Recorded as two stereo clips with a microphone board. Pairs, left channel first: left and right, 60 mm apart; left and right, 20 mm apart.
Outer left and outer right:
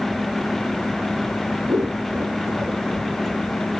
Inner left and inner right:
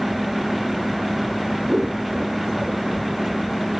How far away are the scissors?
About 3 m.